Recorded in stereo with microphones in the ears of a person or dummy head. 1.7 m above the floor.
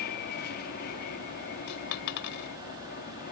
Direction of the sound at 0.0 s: 50° left (ahead or behind).